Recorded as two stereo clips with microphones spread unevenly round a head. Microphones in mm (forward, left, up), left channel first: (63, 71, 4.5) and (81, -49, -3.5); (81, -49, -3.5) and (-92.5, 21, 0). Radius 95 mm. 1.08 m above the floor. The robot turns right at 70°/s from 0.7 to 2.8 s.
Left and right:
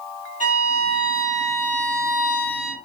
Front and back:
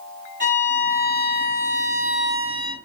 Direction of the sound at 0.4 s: 130° left.